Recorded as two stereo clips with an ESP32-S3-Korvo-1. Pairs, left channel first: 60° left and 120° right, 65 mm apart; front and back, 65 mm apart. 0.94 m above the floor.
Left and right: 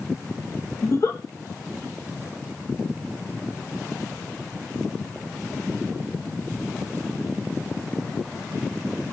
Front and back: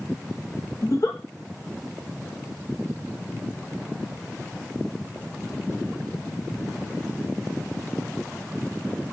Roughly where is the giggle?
Ahead left.